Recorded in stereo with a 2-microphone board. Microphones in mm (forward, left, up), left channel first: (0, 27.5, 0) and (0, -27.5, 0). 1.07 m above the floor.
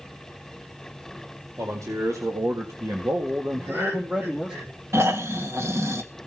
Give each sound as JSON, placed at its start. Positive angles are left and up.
{"t": 1.6, "sound": "a man speaking", "side_deg": -65, "distance_m": 2.5}
{"t": 3.5, "sound": "laughter", "side_deg": -50, "distance_m": 6.0}
{"t": 4.9, "sound": "snoring", "side_deg": -60, "distance_m": 1.6}